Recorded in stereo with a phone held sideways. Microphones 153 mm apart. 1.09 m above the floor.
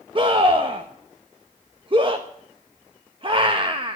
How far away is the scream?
About 1.2 m.